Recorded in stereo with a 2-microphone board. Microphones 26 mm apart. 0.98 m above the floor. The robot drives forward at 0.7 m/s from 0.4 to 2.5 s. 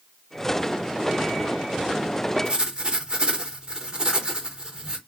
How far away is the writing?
About 0.7 m.